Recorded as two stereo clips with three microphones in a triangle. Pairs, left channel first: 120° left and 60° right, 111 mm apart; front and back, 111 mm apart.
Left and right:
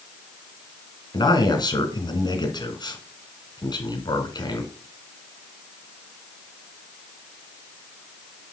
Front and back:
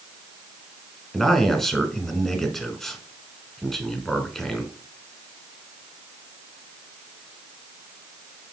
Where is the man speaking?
85° left, 1.8 m.